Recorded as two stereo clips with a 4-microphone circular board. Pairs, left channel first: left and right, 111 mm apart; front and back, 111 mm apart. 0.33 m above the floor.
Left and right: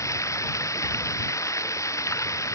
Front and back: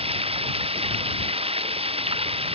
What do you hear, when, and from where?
0.0 s running water: 150° left